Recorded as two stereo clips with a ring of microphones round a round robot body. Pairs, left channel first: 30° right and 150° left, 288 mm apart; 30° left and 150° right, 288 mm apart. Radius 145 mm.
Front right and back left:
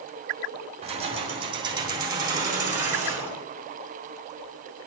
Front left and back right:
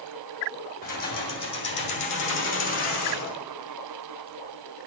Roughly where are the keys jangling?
Left.